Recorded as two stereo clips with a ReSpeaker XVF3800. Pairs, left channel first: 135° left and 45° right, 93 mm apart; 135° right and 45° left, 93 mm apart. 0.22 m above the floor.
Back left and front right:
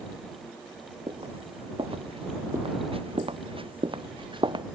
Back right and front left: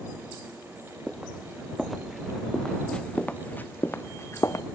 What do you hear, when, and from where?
1.1 s footsteps: 40° right; by 4.7 s 80° right